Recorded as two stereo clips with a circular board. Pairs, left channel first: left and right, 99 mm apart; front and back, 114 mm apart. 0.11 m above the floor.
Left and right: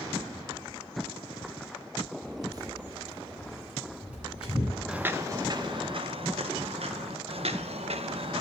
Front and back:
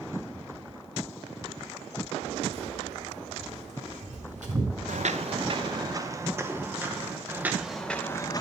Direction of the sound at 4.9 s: 170° right.